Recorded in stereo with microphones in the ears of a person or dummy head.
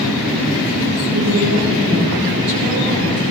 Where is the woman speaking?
70° right (ahead or behind), 6.5 m.